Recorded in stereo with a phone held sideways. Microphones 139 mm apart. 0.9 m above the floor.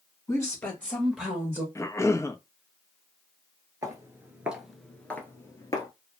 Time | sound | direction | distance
0.3 | a woman speaking | 25° left (ahead or behind) | 1.5 m
1.8 | a cough | 20° left (ahead or behind) | 0.5 m
3.8 | footsteps | 25° right (ahead or behind) | 0.9 m